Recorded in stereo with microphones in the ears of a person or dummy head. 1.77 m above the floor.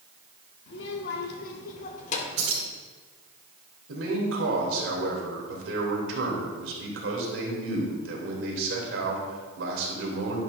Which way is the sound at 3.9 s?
80° right.